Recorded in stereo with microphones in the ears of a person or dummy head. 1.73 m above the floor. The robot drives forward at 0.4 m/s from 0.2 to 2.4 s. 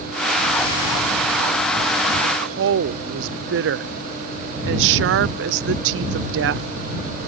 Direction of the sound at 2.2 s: 60° right (ahead or behind).